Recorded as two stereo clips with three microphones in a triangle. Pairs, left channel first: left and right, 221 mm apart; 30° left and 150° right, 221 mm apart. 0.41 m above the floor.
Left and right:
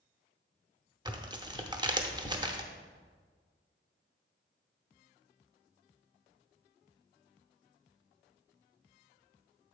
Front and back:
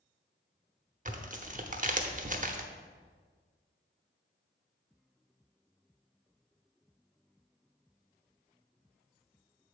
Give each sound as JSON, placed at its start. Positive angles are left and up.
{"t": 1.1, "sound": "tearing paper", "azimuth_deg": -150, "distance_m": 0.7}